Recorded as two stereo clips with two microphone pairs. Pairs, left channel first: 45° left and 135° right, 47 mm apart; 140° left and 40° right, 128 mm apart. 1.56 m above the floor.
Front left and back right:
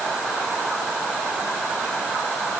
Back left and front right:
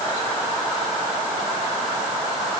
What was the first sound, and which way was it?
Only background noise.